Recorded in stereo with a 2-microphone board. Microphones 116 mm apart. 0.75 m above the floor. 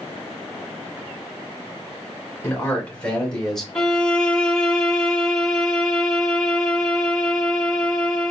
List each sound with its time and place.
2.4 s a man speaking: 15° left (ahead or behind), 2.5 m; by 3.6 s 5° left (ahead or behind), 2.5 m
3.8 s a violin: 10° left (ahead or behind), 2.0 m